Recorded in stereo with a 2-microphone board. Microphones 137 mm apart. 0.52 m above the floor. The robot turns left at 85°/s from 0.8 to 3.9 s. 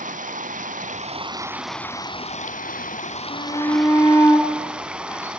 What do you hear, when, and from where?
0.0 s running water: 105° right, 1.2 m; by 5.4 s 10° right, 1.2 m
3.3 s a shout: 70° left, 4.5 m; by 5.3 s 20° left, 4.5 m